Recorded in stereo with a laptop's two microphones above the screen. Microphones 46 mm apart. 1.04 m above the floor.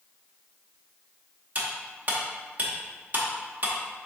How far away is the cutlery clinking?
About 0.8 m.